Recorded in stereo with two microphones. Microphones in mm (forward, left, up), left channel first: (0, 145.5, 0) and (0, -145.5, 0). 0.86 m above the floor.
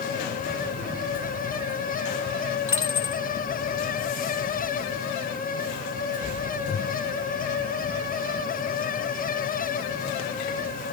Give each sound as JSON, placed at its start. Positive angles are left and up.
{"t": 2.7, "sound": "a dropped coin", "side_deg": 45, "distance_m": 1.6}